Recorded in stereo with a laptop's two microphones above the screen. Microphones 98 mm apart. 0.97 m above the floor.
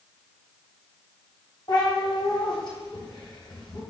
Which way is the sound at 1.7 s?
45° left (ahead or behind).